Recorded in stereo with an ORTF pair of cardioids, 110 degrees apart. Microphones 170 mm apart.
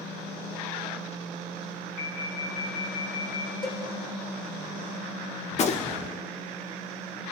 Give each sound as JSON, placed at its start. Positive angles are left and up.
{"t": 2.0, "sound": "an alarm", "azimuth_deg": 70, "distance_m": 4.5}
{"t": 3.6, "sound": "a cowbell", "azimuth_deg": 25, "distance_m": 7.5}
{"t": 5.5, "sound": "a gunshot", "azimuth_deg": 40, "distance_m": 1.9}